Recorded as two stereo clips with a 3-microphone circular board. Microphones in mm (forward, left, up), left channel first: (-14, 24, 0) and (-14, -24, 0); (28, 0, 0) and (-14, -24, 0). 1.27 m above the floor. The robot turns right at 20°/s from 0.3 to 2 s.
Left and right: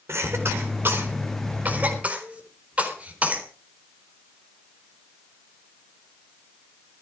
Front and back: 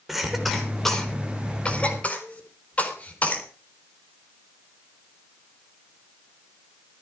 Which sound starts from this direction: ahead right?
A cough, at 0.1 s.